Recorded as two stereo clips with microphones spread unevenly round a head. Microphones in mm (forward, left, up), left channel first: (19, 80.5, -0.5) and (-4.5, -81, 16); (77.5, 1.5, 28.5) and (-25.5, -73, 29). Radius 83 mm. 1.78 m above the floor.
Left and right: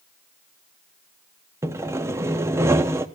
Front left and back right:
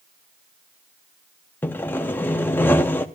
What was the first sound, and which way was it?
Sawing, 35° right.